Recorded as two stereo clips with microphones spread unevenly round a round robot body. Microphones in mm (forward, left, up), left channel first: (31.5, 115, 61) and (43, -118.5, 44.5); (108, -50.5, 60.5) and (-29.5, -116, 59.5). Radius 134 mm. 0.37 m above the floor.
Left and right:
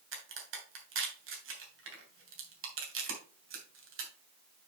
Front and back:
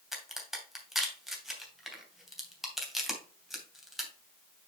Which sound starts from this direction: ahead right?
A crack, at 0.1 s.